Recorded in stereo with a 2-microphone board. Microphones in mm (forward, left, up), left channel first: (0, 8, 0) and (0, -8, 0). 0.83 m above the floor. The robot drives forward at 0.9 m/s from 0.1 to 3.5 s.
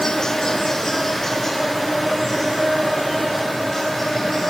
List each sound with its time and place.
0.0 s an insect: 50° left (ahead or behind), 0.8 m; by 4.5 s 10° left (ahead or behind), 3.5 m